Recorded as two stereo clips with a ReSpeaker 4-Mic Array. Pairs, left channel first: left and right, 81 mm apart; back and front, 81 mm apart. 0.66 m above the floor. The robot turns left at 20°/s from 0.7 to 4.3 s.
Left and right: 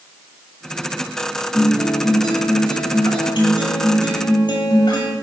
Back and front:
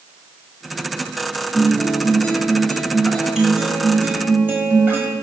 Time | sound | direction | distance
1.5 | a guitar | 120° left | 2.5 m